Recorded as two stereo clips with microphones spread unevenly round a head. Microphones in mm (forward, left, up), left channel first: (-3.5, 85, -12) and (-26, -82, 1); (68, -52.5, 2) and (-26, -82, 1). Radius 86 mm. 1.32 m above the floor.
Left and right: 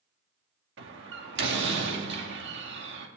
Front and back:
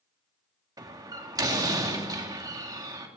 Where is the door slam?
110° right, 1.9 m.